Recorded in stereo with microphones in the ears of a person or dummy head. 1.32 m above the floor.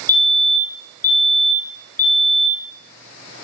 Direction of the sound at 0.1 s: 10° left (ahead or behind).